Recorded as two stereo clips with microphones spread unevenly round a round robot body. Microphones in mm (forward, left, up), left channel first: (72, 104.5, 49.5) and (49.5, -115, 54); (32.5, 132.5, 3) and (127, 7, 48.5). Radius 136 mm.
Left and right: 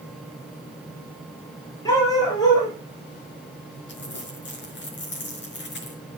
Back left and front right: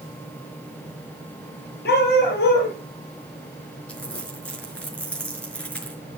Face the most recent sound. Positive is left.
turn(degrees=45)